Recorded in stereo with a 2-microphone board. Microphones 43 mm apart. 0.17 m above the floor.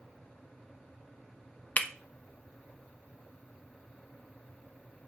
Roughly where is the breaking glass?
Left.